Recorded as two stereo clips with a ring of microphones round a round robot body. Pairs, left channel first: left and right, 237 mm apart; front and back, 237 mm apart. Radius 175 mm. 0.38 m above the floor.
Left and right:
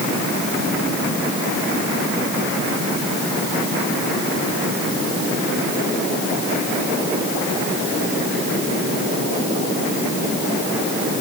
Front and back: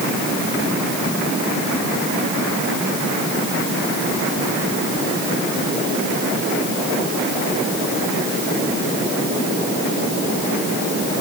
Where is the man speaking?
No man speaking in this recording.